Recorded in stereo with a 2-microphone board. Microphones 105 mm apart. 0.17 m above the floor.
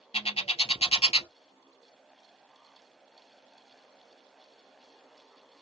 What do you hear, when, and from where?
0.1 s a bird: 70° left (ahead or behind), 0.9 m